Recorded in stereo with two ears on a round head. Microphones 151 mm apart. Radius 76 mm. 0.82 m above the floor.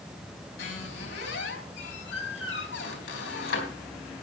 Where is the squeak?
75° left (ahead or behind), 3.5 m.